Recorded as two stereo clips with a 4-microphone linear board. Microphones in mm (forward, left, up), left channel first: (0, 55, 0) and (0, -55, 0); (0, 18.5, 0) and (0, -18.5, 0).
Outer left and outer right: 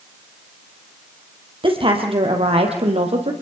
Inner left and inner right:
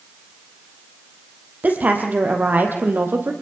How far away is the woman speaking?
About 3.5 m.